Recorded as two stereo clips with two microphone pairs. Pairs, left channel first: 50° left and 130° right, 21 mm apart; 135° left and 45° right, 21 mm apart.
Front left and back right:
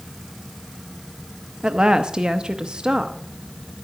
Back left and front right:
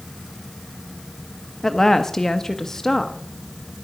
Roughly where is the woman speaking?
Behind.